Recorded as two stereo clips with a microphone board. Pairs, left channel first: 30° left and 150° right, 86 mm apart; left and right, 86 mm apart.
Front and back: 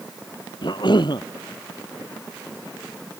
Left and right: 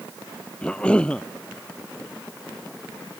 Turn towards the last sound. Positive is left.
turn(degrees=15)